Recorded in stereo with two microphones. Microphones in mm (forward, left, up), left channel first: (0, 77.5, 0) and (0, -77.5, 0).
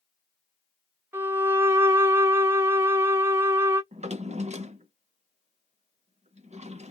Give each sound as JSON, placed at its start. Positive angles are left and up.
{"t": 1.1, "sound": "a violin", "side_deg": -15, "distance_m": 1.1}
{"t": 3.9, "sound": "a drawer", "side_deg": -50, "distance_m": 0.6}